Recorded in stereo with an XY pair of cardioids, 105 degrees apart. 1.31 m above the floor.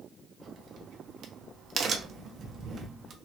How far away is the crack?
About 0.8 m.